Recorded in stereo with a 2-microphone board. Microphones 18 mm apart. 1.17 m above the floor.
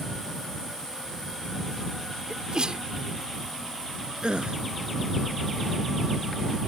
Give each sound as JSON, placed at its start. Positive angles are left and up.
{"t": 2.3, "sound": "a sneeze", "side_deg": -55}
{"t": 4.2, "sound": "a gasp", "side_deg": -60}